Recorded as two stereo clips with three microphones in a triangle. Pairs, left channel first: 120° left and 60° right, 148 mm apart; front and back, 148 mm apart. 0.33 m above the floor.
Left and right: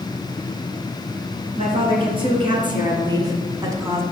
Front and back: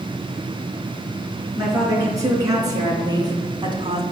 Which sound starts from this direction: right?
A woman speaking, at 1.6 s.